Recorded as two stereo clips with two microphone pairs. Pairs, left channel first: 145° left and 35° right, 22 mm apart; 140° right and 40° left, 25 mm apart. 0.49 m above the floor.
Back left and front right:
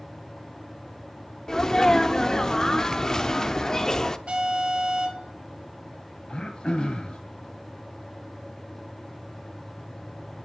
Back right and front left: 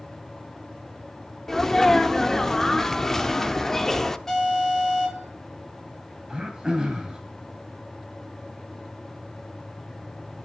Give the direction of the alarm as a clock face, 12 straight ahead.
2 o'clock.